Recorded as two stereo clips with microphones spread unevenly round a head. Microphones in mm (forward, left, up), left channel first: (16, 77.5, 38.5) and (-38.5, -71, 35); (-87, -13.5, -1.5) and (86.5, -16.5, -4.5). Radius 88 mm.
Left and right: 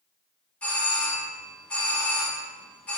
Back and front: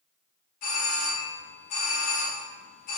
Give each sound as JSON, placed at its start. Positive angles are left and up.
{"t": 0.6, "sound": "a doorbell", "azimuth_deg": 150, "distance_m": 0.7}